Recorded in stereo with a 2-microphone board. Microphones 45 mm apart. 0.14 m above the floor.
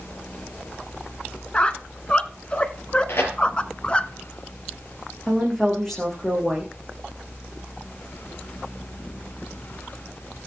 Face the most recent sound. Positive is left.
turn(degrees=10)  # may be behind; listen again after turning